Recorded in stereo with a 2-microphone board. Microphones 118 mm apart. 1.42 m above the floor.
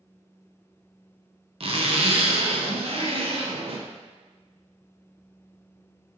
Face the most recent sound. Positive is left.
turn(degrees=-55)  # may be behind; listen again after turning